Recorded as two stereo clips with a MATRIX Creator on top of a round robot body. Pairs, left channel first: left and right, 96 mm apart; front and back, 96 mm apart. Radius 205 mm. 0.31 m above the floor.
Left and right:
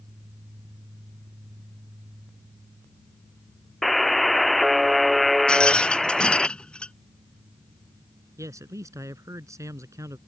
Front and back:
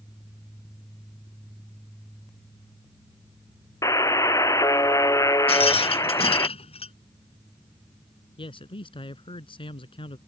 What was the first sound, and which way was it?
A buzzer, straight ahead.